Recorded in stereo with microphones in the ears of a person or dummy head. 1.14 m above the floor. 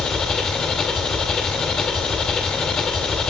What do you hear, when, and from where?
0.0 s an engine running: 5° left (ahead or behind), 1.2 m